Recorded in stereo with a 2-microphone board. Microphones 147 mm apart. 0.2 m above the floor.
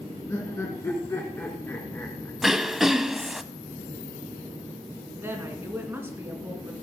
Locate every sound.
0.3 s laughter: 20° left (ahead or behind), 2 m
2.4 s throat clearing: centre (ahead or behind), 0.6 m
5.2 s a woman speaking: 15° right (ahead or behind), 2.5 m